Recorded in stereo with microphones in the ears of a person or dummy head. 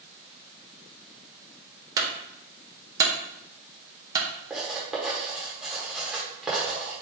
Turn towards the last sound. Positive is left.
turn(degrees=0)  # may be behind; listen again after turning